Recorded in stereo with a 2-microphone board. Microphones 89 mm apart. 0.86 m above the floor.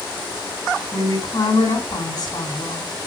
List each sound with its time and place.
0.9 s a woman speaking: 50° left (ahead or behind), 6.5 m